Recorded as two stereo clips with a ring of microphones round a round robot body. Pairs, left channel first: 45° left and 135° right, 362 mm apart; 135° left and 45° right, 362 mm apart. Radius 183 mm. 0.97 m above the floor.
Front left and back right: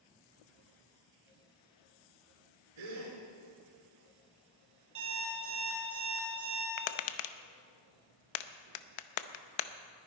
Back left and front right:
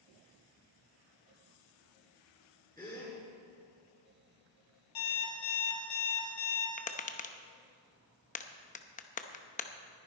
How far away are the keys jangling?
No keys jangling in this recording.